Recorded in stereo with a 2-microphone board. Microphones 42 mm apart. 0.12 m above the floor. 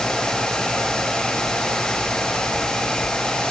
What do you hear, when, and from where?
Only background noise.